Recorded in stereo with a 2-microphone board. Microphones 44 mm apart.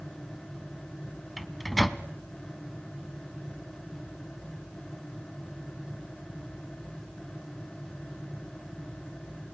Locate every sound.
1.4 s a microwave: centre (ahead or behind), 0.8 m